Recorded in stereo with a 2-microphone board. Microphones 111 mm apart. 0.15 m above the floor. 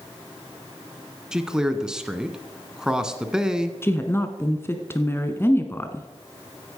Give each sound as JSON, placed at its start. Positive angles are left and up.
{"t": 1.3, "sound": "a man speaking", "side_deg": -5, "distance_m": 1.3}
{"t": 3.8, "sound": "a woman speaking", "side_deg": 20, "distance_m": 1.3}